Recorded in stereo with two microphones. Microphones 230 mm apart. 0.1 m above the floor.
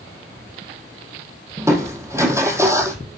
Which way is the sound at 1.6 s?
10° right (ahead or behind).